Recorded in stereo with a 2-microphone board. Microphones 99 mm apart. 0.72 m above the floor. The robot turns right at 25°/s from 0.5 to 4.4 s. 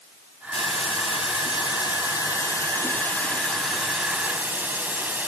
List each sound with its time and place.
0.5 s a hiss: 100° left, 2.5 m; by 5.3 s 165° right, 2.5 m